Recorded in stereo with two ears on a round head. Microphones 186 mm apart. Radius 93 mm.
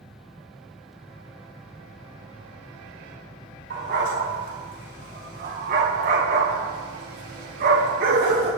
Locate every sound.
3.7 s a dog barking: 50° right (ahead or behind), 5.5 m